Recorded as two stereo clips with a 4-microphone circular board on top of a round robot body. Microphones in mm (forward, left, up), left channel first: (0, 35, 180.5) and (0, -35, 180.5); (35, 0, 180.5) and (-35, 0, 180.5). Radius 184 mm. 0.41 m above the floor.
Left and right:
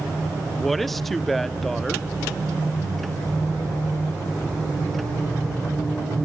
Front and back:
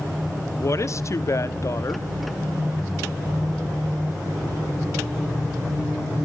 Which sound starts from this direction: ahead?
A woman speaking, at 0.5 s.